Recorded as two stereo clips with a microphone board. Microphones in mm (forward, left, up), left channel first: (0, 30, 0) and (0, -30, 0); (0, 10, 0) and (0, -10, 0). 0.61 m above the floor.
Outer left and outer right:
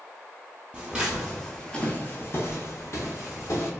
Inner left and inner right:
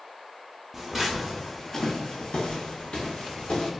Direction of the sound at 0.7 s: 15° right (ahead or behind).